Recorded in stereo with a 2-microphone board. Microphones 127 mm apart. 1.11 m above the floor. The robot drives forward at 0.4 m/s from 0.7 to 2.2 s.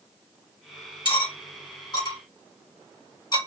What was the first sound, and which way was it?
Cutlery clinking, 45° left (ahead or behind).